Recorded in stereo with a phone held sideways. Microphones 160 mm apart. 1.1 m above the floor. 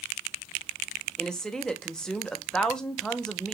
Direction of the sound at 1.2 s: 5° left (ahead or behind).